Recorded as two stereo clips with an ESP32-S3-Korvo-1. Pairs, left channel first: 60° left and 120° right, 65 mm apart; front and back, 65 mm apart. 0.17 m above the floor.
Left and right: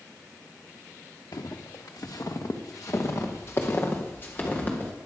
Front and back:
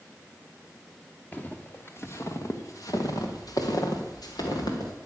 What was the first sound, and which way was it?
Footsteps, 65° left.